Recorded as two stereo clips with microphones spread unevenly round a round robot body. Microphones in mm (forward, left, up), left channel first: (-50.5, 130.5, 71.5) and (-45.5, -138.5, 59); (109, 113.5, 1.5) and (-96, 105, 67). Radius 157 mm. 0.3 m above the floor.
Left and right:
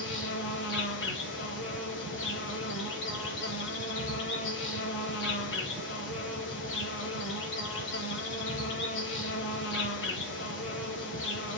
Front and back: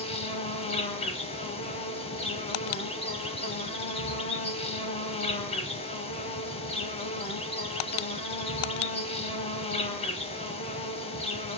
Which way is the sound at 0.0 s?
50° left.